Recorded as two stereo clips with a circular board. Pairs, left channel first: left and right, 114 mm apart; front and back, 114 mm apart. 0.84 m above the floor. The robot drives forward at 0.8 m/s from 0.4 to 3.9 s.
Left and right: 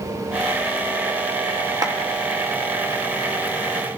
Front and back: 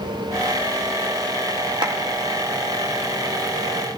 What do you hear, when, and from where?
1.8 s a clap: 140° right, 1.2 m; by 2.0 s 145° right, 1.3 m